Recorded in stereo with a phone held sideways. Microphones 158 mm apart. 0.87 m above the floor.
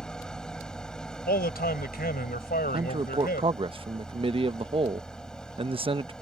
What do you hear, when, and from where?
0.0 s an engine running: 5° left (ahead or behind)
1.3 s a man speaking: 75° left (ahead or behind)
2.7 s a man speaking: 35° right (ahead or behind)